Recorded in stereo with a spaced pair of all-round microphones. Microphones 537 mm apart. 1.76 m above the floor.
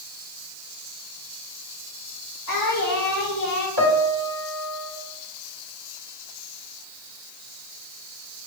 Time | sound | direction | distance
2.5 | singing | 30° left (ahead or behind) | 4 m
3.8 | a piano | 40° right (ahead or behind) | 2 m